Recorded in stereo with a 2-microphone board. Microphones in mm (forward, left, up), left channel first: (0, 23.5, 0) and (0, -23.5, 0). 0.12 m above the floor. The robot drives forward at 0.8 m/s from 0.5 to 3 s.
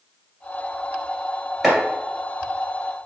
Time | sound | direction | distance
1.6 | chopping | 5° right (ahead or behind) | 1.7 m